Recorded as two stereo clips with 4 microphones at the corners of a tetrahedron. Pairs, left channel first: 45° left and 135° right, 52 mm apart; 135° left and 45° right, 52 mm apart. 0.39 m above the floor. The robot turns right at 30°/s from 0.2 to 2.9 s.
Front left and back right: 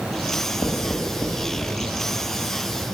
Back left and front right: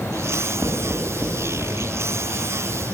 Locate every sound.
0.3 s writing: 10° left, 3 m; by 1.9 s 55° left, 3 m